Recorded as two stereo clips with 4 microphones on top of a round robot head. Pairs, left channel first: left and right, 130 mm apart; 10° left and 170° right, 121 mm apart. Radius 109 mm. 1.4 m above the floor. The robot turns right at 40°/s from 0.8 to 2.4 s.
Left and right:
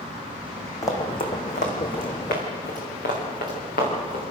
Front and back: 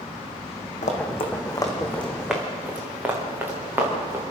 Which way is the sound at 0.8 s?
25° left.